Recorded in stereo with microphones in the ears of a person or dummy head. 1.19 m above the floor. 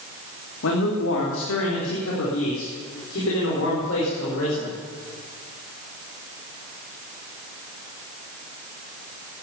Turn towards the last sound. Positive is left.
turn(degrees=80)